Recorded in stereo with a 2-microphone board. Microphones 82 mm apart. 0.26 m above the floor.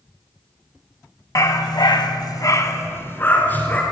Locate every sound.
1.4 s a dog barking: 45° left (ahead or behind), 0.9 m; by 3.8 s 20° left (ahead or behind), 1.8 m